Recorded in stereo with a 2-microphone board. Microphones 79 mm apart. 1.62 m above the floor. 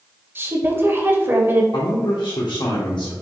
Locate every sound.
0.3 s a woman speaking: 30° right (ahead or behind), 0.8 m
1.7 s a man speaking: 85° left, 0.9 m